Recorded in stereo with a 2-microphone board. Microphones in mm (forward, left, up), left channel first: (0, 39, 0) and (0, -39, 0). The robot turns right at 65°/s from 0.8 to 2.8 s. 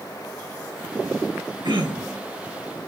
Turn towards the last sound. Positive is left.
turn(degrees=-30)